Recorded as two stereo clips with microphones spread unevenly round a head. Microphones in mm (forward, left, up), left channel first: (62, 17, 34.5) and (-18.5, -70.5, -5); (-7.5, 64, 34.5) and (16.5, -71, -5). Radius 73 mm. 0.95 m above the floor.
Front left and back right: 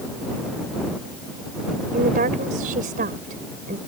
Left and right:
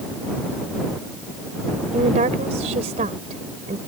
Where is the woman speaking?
125° right.